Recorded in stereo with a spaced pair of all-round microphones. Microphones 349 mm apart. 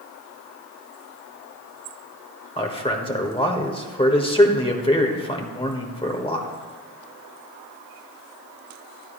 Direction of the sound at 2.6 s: 15° left (ahead or behind).